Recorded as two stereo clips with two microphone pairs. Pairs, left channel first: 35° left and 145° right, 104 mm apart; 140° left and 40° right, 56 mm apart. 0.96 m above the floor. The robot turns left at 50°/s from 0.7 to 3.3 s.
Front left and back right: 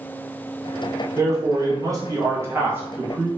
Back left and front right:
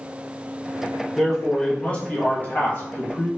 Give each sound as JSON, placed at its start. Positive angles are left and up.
{"t": 1.2, "sound": "a man speaking", "azimuth_deg": -120, "distance_m": 0.8}